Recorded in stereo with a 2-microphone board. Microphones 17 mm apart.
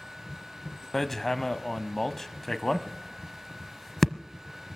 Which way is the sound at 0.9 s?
15° left (ahead or behind).